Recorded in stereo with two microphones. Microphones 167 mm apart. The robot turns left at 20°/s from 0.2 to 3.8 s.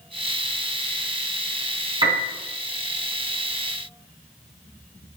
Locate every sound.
2.0 s a piano: 30° right (ahead or behind), 3 m; by 2.3 s 25° right (ahead or behind), 3 m